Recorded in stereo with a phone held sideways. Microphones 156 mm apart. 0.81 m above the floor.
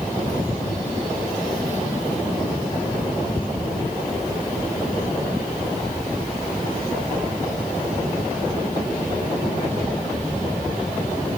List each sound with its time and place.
Only background noise.